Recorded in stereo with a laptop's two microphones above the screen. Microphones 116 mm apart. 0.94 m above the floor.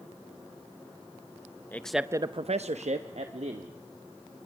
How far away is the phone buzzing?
No phone buzzing in this recording.